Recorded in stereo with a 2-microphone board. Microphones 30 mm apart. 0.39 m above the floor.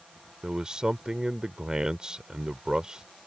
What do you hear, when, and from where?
0.4 s a man speaking: 30° right (ahead or behind)